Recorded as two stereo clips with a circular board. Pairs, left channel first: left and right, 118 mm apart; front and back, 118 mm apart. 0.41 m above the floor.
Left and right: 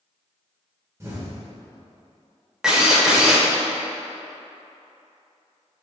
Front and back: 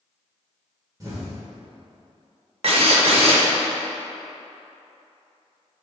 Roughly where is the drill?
Behind.